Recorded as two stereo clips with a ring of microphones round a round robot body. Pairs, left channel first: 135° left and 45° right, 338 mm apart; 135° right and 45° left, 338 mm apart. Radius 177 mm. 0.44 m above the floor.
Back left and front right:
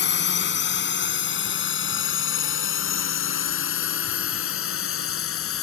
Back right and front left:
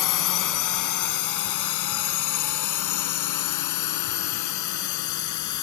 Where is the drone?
165° right; by 5.6 s 175° right.